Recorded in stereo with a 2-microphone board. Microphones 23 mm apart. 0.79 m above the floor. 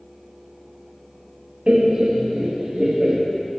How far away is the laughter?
About 1.0 m.